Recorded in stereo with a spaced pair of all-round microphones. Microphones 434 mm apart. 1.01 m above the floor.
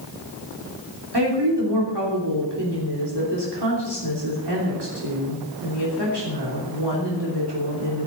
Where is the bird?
I don't hear a bird.